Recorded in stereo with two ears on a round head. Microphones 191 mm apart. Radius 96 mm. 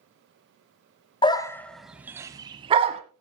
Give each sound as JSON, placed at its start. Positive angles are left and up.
{"t": 1.2, "sound": "a dog barking", "side_deg": 25, "distance_m": 0.8}